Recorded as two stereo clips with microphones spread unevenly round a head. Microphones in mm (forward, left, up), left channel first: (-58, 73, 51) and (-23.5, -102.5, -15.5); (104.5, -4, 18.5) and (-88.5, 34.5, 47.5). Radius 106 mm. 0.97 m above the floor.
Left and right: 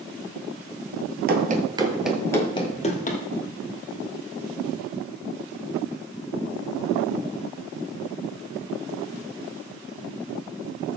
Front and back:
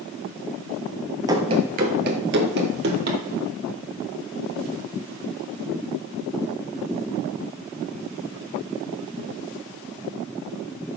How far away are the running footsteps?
About 1.5 m.